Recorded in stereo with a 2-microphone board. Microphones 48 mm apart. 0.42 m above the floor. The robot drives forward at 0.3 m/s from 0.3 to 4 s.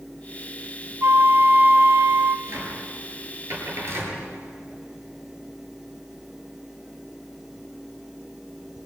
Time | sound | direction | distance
1.0 | a flute | 55° right (ahead or behind) | 0.8 m
2.5 | a cupboard door | 65° right (ahead or behind) | 9 m